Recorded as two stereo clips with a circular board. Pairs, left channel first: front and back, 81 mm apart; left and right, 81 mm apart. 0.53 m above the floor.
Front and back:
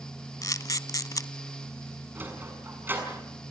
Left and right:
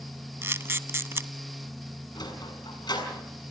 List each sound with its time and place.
0.4 s a camera shutter: 35° right, 0.7 m
2.1 s a sliding door: 115° left, 6.5 m